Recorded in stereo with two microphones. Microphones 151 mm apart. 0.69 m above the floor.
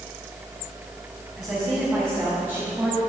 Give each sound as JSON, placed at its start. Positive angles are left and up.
{"t": 1.4, "sound": "a woman speaking", "side_deg": -15, "distance_m": 3.5}